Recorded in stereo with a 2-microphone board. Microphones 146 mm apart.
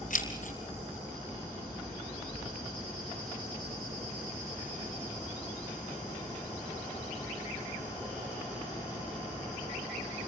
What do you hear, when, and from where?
0.1 s keys jangling: 65° left (ahead or behind), 3.5 m